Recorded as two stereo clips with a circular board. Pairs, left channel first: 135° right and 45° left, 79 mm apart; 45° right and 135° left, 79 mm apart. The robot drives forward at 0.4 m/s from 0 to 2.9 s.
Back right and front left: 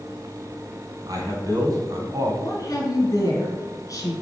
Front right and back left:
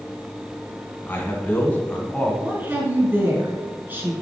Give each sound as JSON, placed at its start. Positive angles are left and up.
{"t": 1.1, "sound": "a man speaking", "azimuth_deg": 20, "distance_m": 1.8}
{"t": 2.4, "sound": "a woman speaking", "azimuth_deg": -165, "distance_m": 2.5}